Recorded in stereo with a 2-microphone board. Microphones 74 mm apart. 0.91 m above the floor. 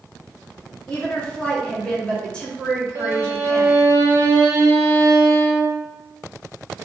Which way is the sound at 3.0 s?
35° right (ahead or behind).